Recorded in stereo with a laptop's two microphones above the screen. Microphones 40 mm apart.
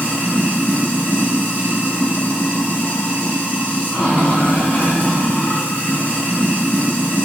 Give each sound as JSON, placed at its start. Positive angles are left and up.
{"t": 0.0, "sound": "running water", "side_deg": 35, "distance_m": 1.4}